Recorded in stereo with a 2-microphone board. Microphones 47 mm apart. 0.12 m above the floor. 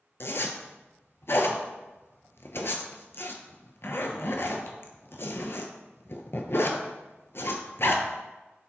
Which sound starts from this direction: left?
A zipper, at 0.2 s.